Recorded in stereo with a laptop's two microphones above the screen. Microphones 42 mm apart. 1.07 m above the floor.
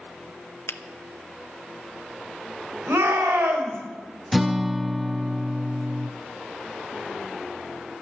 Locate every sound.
0.7 s a finger snap: 80° left, 0.6 m
2.9 s a shout: 85° right, 4.5 m
4.3 s a guitar: 5° right (ahead or behind), 0.7 m